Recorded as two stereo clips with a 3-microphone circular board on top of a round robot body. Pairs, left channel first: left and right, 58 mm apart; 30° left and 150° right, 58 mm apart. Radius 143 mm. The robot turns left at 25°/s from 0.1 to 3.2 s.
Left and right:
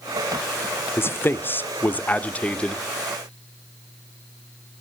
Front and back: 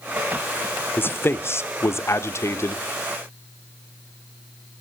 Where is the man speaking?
65° left, 1.2 m; by 2.9 s 20° left, 1.2 m.